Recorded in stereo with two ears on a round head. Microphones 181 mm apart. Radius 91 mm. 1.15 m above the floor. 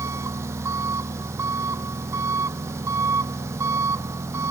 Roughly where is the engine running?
Centre.